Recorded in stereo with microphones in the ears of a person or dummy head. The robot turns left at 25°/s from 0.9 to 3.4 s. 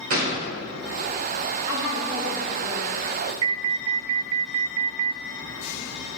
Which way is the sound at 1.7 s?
25° right.